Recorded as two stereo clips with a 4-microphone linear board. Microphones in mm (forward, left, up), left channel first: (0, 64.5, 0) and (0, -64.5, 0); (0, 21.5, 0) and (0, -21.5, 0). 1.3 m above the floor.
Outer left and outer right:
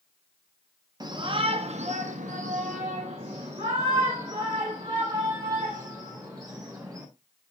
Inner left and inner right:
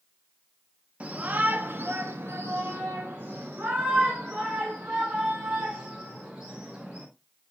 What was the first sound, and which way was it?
A shout, 30° right (ahead or behind).